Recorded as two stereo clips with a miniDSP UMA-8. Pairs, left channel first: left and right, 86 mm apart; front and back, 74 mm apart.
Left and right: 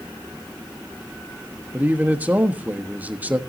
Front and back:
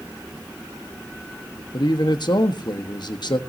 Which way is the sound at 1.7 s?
20° right.